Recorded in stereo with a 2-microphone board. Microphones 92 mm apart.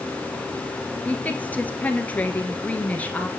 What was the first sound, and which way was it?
A woman speaking, 20° left (ahead or behind).